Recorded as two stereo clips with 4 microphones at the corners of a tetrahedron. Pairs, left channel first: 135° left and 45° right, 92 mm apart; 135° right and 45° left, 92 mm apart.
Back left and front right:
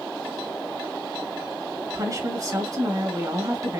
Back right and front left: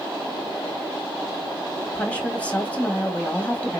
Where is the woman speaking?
65° right, 1.6 m.